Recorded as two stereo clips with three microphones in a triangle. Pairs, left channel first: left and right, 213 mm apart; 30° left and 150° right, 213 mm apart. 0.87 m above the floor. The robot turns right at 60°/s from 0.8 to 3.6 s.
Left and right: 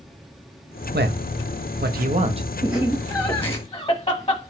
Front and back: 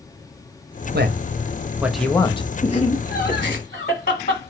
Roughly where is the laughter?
Ahead.